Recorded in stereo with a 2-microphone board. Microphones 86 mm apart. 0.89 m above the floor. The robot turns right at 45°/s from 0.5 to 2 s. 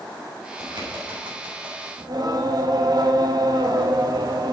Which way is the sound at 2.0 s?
50° right (ahead or behind).